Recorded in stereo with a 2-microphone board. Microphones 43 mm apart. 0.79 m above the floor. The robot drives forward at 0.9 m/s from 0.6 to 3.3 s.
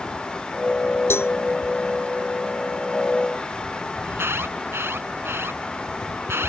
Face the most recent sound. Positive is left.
turn(degrees=-80)